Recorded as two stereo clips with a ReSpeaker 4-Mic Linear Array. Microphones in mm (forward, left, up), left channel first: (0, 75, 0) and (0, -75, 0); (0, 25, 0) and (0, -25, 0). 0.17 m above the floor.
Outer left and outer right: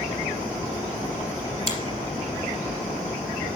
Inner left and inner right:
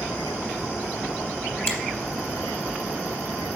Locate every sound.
1.7 s a finger snap: 40° left (ahead or behind), 3.5 m